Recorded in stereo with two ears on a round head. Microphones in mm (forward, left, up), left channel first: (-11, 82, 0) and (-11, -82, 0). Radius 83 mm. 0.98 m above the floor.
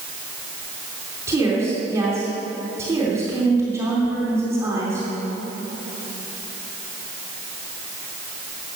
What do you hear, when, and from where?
1.3 s a woman speaking: 15° right (ahead or behind), 3 m